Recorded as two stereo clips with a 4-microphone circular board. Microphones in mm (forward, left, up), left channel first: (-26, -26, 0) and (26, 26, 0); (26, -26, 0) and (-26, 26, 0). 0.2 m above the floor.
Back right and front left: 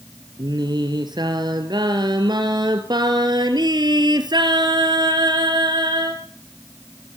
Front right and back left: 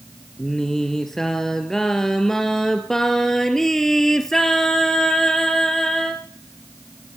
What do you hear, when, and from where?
0.4 s singing: 40° left, 2.5 m